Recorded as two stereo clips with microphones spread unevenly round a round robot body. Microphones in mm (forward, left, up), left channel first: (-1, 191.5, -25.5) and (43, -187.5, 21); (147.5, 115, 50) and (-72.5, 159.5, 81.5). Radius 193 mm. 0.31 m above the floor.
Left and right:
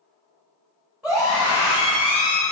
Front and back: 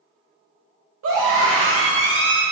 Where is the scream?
175° right, 1.7 m; by 2.4 s 145° left, 1.3 m.